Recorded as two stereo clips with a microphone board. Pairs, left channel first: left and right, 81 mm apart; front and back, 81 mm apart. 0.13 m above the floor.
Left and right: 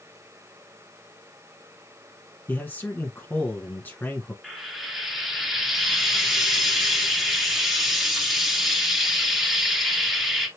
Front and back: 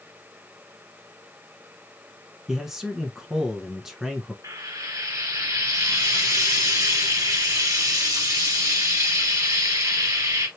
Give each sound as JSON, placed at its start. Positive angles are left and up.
{"t": 2.5, "sound": "a man speaking", "azimuth_deg": 100, "distance_m": 1.3}
{"t": 4.4, "sound": "frying", "azimuth_deg": -175, "distance_m": 2.0}